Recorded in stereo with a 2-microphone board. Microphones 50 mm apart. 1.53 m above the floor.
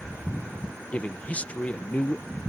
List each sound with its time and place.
0.9 s a man speaking: 25° left (ahead or behind)